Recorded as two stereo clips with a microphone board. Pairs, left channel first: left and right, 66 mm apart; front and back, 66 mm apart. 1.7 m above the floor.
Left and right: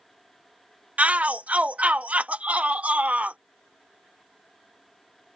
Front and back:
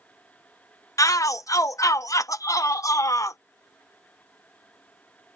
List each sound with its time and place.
1.0 s a shout: 20° right